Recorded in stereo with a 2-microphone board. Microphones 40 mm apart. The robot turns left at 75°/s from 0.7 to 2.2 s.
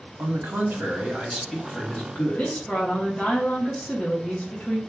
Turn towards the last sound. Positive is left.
turn(degrees=20)  # may be behind; listen again after turning